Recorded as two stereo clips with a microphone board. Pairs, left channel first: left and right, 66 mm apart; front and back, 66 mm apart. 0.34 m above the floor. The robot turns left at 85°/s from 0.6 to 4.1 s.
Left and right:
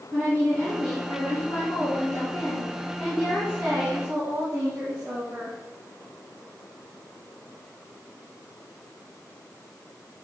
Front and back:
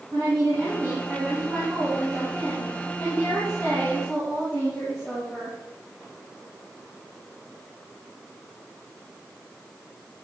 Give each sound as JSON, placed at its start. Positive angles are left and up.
{"t": 0.1, "sound": "a woman speaking", "azimuth_deg": -145, "distance_m": 3.5}